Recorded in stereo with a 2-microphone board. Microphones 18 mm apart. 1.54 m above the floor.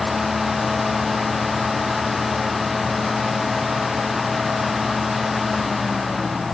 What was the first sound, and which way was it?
Only background noise.